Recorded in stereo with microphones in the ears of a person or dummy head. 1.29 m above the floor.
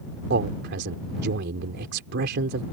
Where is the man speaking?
65° right (ahead or behind).